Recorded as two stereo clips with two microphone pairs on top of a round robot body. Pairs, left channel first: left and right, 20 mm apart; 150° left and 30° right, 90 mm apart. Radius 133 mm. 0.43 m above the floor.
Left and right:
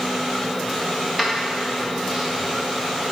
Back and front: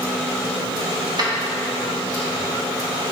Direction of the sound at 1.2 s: 5° left.